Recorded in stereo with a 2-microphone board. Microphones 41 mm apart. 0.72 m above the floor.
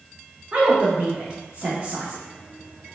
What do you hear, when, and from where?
0.5 s a woman speaking: 30° right (ahead or behind), 0.7 m